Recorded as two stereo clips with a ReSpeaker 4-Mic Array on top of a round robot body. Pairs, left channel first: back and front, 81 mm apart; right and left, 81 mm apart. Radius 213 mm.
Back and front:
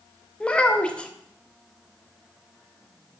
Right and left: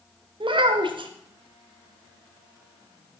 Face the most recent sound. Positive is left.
turn(degrees=105)